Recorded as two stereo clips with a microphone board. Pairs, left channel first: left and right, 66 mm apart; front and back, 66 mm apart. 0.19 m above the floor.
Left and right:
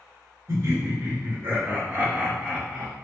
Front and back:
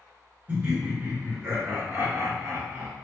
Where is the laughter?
110° right, 1.7 m; by 2.9 s 170° left, 1.3 m.